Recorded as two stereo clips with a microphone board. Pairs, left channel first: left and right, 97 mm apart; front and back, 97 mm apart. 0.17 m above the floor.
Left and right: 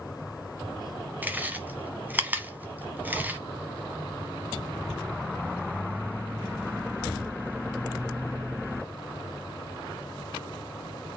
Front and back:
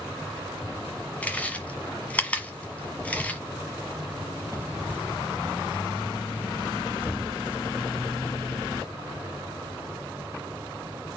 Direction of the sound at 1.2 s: 50° right.